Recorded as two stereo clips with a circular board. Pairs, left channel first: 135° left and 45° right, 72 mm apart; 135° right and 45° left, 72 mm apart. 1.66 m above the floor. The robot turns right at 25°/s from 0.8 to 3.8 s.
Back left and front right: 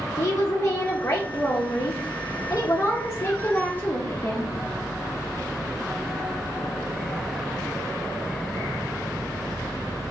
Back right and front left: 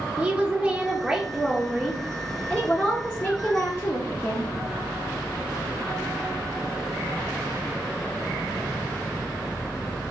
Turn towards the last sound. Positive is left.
turn(degrees=180)